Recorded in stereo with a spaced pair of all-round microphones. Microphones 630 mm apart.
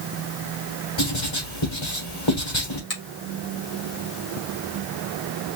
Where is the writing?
45° left (ahead or behind), 2.5 m.